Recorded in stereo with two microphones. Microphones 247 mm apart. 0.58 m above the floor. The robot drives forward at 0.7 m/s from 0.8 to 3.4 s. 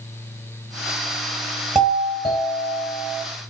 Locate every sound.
1.8 s a doorbell: centre (ahead or behind), 4.5 m